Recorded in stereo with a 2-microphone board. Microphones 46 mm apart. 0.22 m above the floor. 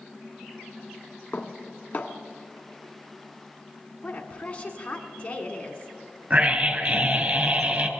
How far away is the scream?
About 2.5 m.